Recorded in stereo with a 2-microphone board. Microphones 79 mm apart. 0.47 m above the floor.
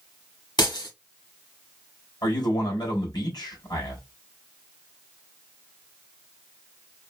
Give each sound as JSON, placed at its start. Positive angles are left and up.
{"t": 0.6, "sound": "breaking glass", "side_deg": 65, "distance_m": 1.7}
{"t": 2.2, "sound": "a man speaking", "side_deg": 60, "distance_m": 2.5}